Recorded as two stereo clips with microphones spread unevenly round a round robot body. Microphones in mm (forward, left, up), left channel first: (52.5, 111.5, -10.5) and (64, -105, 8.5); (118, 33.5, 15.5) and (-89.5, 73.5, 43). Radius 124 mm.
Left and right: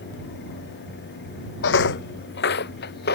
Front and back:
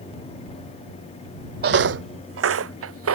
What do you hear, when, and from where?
1.6 s footsteps: 135° left; by 3.2 s 150° left